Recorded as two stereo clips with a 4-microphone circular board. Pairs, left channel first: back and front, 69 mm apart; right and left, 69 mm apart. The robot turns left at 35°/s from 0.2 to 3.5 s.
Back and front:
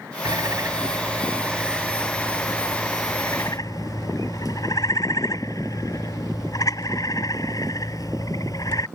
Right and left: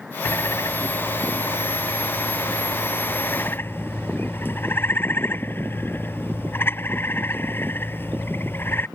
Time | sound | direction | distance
0.2 | a bird | 35° right | ?